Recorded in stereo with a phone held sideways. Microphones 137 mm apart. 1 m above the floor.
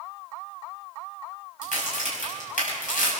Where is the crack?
75° left (ahead or behind), 6.5 m.